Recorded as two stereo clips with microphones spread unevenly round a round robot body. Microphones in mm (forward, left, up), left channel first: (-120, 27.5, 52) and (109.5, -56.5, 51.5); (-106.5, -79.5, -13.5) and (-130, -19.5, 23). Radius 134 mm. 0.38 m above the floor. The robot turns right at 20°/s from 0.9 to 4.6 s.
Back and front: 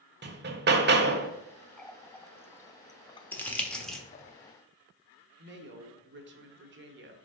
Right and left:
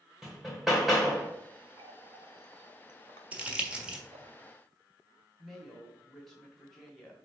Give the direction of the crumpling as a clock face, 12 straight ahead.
4 o'clock.